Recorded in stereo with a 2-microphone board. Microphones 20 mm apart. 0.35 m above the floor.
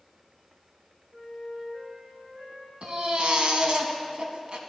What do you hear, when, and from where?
1.1 s a flute: 75° right (ahead or behind), 3 m
2.8 s a baby crying: 55° right (ahead or behind), 0.8 m